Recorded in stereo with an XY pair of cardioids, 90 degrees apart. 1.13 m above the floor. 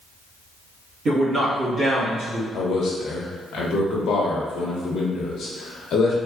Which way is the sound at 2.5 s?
65° left.